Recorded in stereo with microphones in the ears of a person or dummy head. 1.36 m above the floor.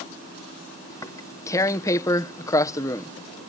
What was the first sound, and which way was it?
Tearing paper, 15° left (ahead or behind).